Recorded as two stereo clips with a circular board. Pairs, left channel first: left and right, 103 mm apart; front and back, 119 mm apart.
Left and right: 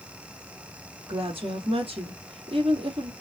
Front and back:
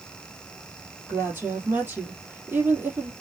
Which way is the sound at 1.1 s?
105° right.